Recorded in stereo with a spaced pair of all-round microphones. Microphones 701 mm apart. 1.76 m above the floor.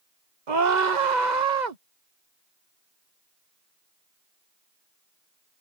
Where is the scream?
85° right.